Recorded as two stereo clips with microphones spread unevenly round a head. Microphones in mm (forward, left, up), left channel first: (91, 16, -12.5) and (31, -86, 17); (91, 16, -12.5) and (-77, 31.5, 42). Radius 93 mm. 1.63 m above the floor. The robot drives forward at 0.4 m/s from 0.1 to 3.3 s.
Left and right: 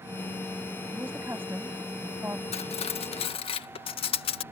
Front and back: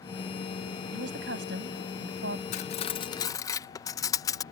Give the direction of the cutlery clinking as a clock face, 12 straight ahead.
10 o'clock.